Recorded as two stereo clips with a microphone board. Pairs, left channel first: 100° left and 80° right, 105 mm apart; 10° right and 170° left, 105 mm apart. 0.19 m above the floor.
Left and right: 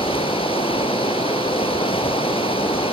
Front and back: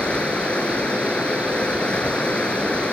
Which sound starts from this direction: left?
Running water, at 0.0 s.